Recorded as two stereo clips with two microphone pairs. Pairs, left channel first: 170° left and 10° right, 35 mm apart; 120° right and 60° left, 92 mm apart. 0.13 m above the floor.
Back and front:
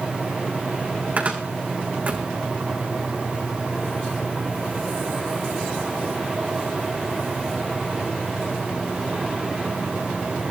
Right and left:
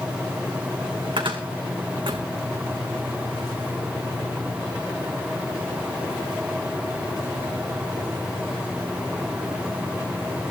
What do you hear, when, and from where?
1.2 s a cupboard door: 35° left, 3.5 m